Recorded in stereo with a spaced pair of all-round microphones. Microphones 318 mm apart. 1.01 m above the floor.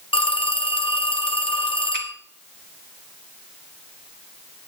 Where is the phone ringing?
15° left (ahead or behind), 0.8 m.